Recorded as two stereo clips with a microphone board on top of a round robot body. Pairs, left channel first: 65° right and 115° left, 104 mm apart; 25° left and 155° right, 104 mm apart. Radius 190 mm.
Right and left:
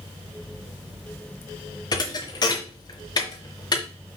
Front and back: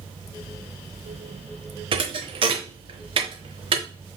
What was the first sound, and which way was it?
A thud, 120° right.